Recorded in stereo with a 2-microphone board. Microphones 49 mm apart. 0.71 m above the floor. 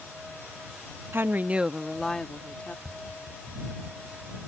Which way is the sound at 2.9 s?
20° right (ahead or behind).